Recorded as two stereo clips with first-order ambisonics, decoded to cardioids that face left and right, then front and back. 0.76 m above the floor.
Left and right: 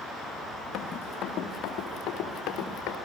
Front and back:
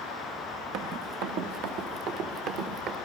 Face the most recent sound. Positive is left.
turn(degrees=135)